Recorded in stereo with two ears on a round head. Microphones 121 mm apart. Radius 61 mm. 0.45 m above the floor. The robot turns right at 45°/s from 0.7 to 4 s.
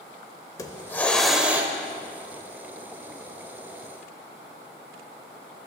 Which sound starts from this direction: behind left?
A hiss, at 0.6 s.